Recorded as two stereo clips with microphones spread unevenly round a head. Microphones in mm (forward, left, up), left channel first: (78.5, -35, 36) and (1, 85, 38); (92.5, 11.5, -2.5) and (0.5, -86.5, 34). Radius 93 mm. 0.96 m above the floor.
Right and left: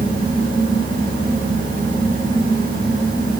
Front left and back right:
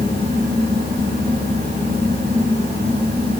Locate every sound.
0.0 s a fan: 165° left, 4 m